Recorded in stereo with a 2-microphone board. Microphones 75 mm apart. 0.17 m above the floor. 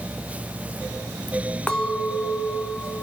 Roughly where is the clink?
Centre.